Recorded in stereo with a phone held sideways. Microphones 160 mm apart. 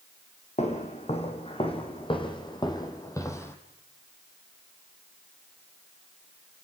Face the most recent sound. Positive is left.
turn(degrees=15)  # may be behind; listen again after turning